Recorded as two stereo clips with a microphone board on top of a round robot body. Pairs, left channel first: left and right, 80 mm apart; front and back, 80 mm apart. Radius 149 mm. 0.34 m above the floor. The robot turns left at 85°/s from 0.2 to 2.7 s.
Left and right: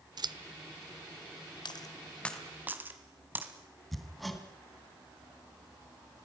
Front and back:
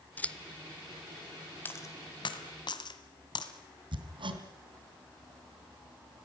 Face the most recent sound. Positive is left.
turn(degrees=180)